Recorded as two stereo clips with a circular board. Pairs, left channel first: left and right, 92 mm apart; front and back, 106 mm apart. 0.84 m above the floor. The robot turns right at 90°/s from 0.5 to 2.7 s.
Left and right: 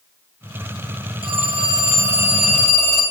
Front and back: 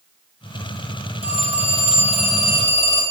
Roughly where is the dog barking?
No dog barking in this recording.